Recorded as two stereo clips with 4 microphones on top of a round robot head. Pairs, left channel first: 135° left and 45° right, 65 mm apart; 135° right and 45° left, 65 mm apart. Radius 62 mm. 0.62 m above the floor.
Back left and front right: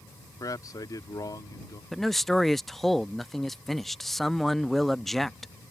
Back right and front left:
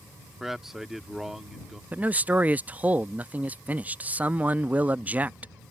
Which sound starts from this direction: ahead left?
A man speaking, at 1.9 s.